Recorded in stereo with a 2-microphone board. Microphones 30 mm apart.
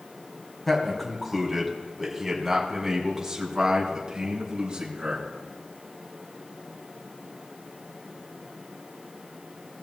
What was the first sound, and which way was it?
A man speaking, 10° left (ahead or behind).